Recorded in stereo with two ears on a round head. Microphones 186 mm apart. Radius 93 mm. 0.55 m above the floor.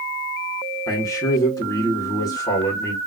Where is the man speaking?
15° left (ahead or behind), 1.8 m.